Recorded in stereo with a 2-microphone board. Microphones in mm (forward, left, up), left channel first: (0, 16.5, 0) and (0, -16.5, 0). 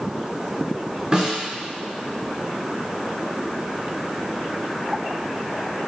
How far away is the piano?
No piano in this recording.